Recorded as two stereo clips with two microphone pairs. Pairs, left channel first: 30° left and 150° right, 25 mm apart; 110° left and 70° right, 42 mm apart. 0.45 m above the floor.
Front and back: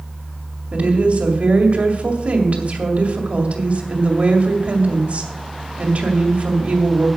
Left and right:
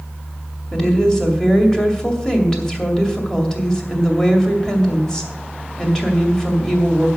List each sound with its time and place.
0.7 s a woman speaking: 175° right, 2 m